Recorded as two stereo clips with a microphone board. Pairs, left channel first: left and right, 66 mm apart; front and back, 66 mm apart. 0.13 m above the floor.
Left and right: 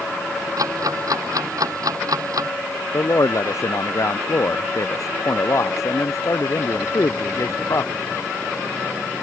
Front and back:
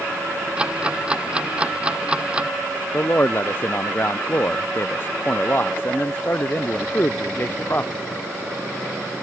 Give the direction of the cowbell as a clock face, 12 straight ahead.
No cowbell in this recording.